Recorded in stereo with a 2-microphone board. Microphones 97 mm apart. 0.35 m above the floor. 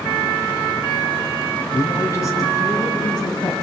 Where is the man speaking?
30° left (ahead or behind), 3.5 m; by 3.5 s 45° left (ahead or behind), 3 m.